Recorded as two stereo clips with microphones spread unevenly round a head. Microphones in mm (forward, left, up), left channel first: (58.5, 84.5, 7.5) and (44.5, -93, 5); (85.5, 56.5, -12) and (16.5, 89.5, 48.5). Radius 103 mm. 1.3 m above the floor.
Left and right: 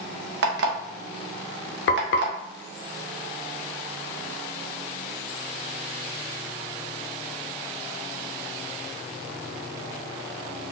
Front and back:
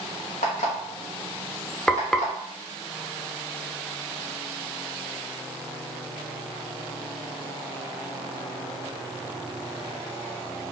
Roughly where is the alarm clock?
Right.